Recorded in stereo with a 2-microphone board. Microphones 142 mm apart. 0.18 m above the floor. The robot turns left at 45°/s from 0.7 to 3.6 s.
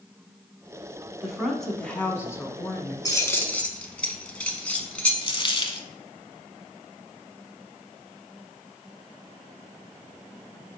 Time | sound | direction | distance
1.2 | a woman speaking | 170° right | 1.2 m
3.0 | keys jangling | 25° left (ahead or behind) | 1.0 m
5.2 | a dropped coin | 35° left (ahead or behind) | 0.7 m